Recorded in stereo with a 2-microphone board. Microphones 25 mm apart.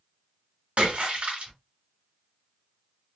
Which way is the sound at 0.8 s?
55° right (ahead or behind).